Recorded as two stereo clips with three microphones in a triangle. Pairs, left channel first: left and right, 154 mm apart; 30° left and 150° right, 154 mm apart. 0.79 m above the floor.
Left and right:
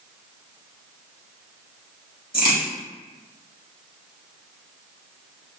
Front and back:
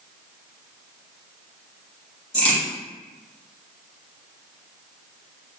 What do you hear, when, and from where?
2.3 s a crack: 75° left, 1.9 m